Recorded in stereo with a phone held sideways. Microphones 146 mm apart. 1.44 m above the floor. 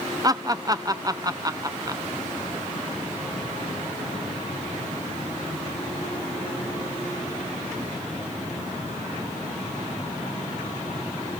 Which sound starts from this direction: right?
Laughter, at 0.2 s.